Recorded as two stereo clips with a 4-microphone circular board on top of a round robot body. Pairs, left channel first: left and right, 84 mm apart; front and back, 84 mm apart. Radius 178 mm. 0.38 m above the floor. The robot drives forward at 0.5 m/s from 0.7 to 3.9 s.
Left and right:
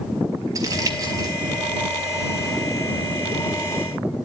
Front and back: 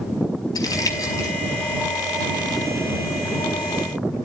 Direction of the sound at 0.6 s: 45° right.